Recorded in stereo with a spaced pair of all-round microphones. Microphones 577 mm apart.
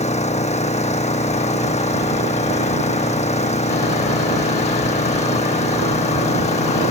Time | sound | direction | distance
0.0 | an engine running | 10° left (ahead or behind) | ?